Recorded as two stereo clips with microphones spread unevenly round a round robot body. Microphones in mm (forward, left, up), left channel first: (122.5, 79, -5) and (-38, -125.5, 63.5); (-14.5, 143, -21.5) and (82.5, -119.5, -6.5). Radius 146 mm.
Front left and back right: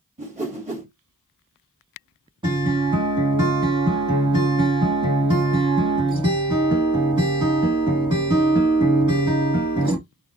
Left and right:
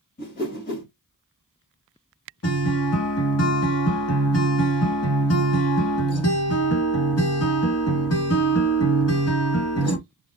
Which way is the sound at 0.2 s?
160° left.